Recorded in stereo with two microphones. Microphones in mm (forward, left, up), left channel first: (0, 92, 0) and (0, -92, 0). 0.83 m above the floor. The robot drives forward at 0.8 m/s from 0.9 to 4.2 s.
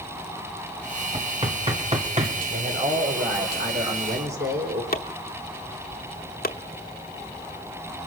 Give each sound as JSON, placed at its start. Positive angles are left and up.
{"t": 1.1, "sound": "knocking", "side_deg": -30, "distance_m": 2.5}
{"t": 2.5, "sound": "a man speaking", "side_deg": -70, "distance_m": 4.0}
{"t": 4.9, "sound": "chopping", "side_deg": 55, "distance_m": 1.0}